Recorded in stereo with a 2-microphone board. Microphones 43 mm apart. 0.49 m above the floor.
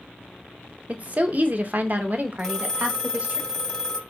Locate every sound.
0.9 s a woman speaking: 35° right (ahead or behind), 0.8 m
2.4 s a phone ringing: 5° left (ahead or behind), 1.6 m